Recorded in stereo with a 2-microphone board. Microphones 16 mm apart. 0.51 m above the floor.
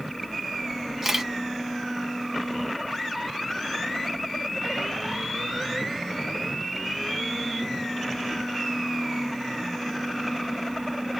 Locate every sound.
1.0 s a camera shutter: 25° right (ahead or behind), 1.0 m